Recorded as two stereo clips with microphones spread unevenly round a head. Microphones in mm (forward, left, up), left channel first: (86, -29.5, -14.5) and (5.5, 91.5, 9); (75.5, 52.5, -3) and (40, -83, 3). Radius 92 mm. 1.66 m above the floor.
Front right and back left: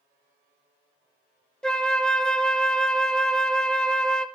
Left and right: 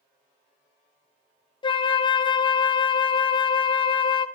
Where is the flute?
40° left, 0.6 m.